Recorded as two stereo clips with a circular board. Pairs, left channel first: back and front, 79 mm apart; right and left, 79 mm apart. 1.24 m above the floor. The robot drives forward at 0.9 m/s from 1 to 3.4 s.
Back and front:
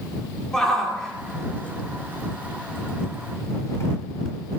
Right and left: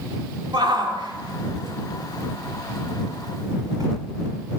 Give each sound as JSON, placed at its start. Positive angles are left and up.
{"t": 0.5, "sound": "a shout", "azimuth_deg": 95, "distance_m": 3.5}